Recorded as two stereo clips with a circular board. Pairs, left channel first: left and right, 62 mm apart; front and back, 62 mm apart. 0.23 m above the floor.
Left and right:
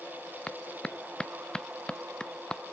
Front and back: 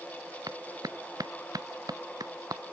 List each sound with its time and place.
0.5 s a clap: 165° left